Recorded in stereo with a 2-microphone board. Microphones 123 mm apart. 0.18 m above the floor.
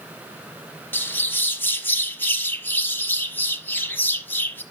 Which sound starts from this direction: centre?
A bird, at 0.9 s.